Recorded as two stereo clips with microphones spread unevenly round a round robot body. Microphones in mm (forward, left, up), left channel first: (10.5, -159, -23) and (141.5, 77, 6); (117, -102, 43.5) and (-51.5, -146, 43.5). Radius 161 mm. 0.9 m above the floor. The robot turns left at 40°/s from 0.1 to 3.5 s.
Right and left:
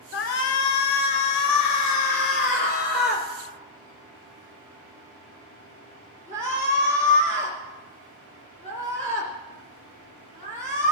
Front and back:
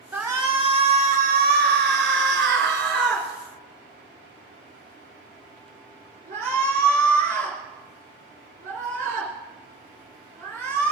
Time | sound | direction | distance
0.1 | a shout | 80° right | 2.0 m